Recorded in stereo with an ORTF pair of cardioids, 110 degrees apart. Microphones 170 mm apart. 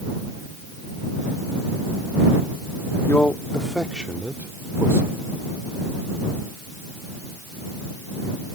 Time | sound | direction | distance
3.1 | a man speaking | 10° left | ?